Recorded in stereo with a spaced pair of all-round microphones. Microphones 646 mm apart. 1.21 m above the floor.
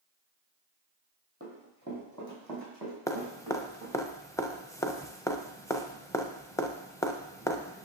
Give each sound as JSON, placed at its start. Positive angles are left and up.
{"t": 1.4, "sound": "running footsteps", "side_deg": -20, "distance_m": 2.5}
{"t": 3.1, "sound": "dripping", "side_deg": 5, "distance_m": 0.6}